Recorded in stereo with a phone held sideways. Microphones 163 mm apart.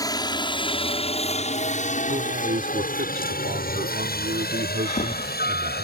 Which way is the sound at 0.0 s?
25° left (ahead or behind).